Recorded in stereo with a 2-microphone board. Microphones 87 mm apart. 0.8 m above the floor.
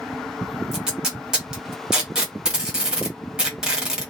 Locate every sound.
0.7 s tape being pulled: 10° right (ahead or behind), 1.6 m